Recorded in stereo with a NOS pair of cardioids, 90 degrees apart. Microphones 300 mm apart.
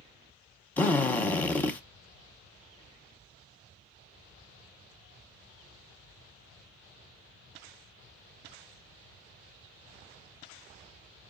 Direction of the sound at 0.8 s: 5° left.